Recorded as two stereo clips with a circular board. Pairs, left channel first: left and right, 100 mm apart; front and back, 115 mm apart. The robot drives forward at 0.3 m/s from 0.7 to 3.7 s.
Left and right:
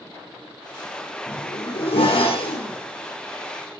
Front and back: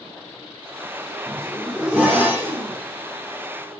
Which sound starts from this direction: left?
A zipper, at 1.3 s.